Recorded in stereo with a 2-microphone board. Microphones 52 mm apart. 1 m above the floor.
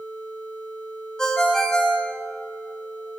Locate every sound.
1.2 s a ringtone: 15° left (ahead or behind), 0.9 m